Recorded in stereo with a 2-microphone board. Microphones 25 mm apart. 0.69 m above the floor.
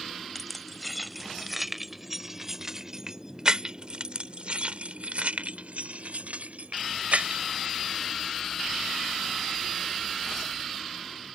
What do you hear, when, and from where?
0.3 s keys jangling: 10° left (ahead or behind); by 7.4 s 80° right